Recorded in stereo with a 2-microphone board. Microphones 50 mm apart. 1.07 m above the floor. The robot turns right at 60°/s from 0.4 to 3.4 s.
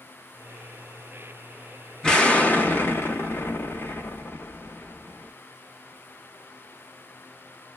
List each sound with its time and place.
2.0 s an explosion: 20° left, 0.8 m; by 5.3 s 105° left, 0.8 m